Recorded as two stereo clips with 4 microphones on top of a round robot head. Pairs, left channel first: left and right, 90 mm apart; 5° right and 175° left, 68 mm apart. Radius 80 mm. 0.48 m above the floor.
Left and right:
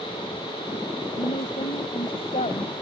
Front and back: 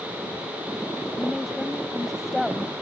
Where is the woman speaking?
85° left.